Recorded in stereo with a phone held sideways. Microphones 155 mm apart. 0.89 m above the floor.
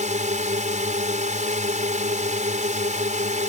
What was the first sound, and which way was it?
A drone, 50° right (ahead or behind).